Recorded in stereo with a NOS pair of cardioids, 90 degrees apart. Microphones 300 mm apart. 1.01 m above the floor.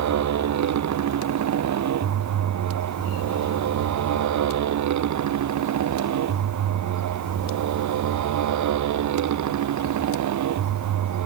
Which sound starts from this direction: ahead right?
A motorcycle, at 0.0 s.